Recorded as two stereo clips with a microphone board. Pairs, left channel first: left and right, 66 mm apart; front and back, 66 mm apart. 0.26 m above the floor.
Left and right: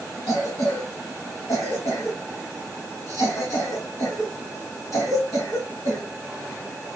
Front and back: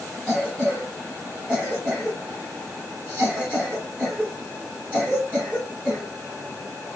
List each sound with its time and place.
0.3 s a cough: 105° left, 2.5 m